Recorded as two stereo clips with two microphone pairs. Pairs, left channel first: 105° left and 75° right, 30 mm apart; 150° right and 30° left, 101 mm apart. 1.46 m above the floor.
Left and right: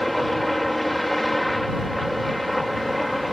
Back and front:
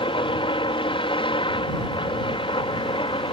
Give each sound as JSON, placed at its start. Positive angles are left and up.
{"t": 0.0, "sound": "a helicopter", "azimuth_deg": -170}